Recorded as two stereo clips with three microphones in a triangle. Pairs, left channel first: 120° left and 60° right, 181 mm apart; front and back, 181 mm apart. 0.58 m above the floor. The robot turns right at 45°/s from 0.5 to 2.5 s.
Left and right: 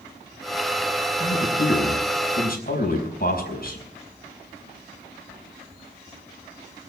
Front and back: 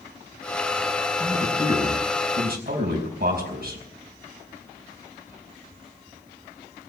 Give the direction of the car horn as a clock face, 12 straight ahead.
I don't hear a car horn.